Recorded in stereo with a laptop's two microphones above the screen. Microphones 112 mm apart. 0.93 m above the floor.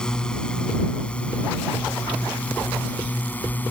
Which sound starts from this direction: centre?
A drone, at 0.0 s.